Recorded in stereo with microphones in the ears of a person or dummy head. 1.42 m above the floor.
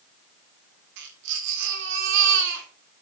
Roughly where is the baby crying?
Right.